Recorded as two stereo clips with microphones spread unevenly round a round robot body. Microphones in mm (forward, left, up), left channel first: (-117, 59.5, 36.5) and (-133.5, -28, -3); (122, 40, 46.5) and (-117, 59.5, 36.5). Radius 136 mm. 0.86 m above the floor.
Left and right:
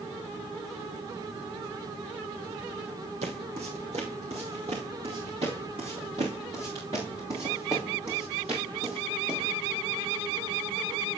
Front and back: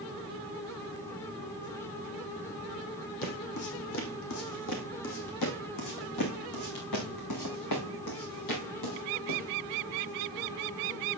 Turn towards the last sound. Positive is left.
turn(degrees=-10)